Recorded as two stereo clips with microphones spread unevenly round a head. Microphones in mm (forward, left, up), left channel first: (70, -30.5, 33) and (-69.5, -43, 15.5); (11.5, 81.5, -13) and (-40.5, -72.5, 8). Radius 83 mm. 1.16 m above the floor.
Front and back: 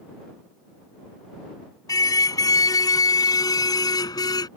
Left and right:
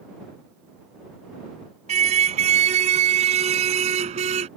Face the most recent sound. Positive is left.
turn(degrees=-55)